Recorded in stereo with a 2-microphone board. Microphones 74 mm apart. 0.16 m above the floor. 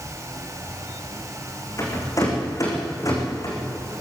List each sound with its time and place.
1.8 s a rattle: 45° left (ahead or behind), 6.5 m